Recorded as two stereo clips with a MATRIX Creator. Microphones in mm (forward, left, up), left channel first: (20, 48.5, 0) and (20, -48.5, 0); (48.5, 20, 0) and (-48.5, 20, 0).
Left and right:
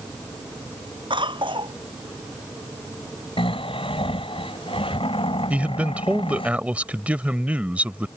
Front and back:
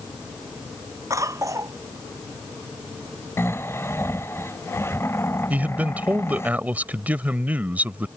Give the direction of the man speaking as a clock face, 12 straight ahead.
5 o'clock.